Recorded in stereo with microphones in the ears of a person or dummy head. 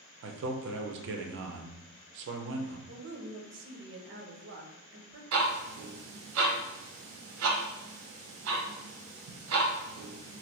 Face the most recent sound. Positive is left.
turn(degrees=-85)